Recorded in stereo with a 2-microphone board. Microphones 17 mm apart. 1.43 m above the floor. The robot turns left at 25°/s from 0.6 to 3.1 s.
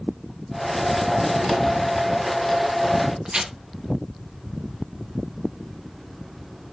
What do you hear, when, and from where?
3.2 s tearing paper: 50° right (ahead or behind), 0.8 m